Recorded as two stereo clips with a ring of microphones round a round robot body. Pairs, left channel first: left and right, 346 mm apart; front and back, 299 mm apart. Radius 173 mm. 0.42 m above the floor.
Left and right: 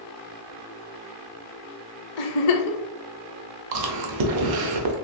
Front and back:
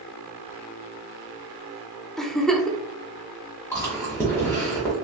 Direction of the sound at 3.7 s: 80° right.